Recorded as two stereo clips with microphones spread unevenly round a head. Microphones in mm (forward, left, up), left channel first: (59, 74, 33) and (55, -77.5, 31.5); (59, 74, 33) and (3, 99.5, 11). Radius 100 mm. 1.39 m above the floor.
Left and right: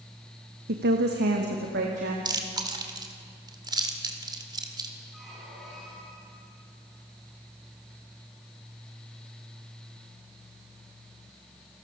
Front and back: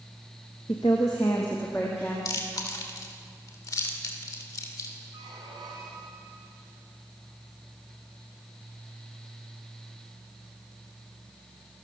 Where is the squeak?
Straight behind, 4.5 m.